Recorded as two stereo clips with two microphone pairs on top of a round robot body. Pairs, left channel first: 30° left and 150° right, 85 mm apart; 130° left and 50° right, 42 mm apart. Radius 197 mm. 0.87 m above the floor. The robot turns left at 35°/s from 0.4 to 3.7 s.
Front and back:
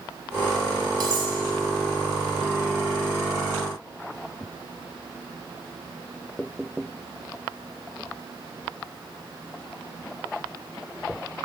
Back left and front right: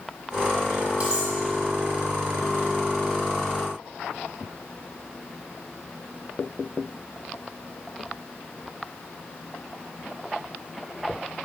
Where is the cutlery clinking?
110° right, 0.9 m; by 1.3 s 120° right, 0.9 m.